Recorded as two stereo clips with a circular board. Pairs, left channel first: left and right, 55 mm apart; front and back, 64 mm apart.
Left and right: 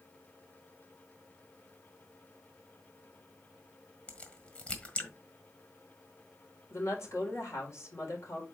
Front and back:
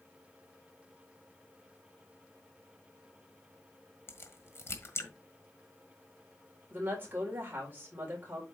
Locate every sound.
4.1 s a crack: 30° left, 1.6 m
6.7 s a woman speaking: 120° left, 4 m